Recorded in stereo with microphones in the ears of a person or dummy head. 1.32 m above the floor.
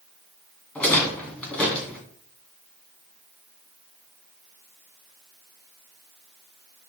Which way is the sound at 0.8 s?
5° left (ahead or behind).